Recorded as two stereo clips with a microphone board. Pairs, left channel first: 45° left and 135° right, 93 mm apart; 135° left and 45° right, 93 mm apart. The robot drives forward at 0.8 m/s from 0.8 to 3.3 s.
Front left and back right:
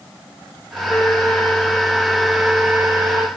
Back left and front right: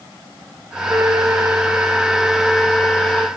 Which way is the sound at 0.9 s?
10° right.